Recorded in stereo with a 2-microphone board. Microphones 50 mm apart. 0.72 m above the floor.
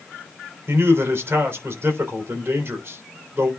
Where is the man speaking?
50° right (ahead or behind), 3 m.